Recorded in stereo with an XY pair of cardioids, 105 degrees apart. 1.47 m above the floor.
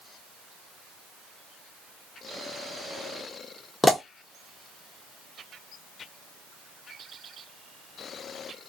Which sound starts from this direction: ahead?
A pop, at 3.8 s.